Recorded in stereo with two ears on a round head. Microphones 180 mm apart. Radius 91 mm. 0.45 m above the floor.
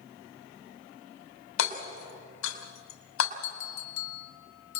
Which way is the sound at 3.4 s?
75° left (ahead or behind).